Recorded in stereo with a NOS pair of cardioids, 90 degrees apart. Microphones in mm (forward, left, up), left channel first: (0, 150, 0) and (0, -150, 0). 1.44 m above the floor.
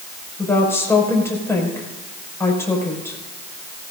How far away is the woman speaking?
About 6 m.